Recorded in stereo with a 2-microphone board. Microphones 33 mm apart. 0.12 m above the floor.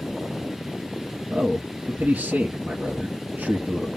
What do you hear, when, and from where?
1.3 s a man speaking: 50° right (ahead or behind), 1.9 m